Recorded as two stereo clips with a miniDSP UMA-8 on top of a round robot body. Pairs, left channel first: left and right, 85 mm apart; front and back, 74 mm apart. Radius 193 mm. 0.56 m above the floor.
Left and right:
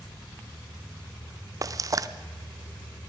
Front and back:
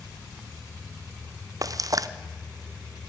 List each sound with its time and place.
1.6 s frying: 140° right, 0.7 m